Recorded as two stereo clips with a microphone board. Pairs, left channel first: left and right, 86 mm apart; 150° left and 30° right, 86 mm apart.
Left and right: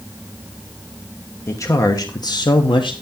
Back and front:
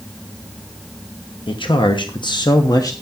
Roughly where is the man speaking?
Behind left.